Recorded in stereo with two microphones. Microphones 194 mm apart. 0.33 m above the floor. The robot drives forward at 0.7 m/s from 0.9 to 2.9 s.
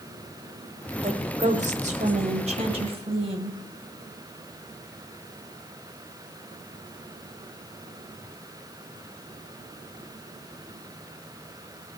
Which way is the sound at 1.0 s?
35° right (ahead or behind).